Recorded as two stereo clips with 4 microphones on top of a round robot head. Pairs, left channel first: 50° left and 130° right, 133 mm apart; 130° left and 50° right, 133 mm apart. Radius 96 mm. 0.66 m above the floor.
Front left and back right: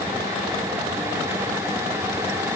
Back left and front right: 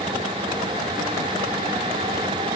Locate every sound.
Only background noise.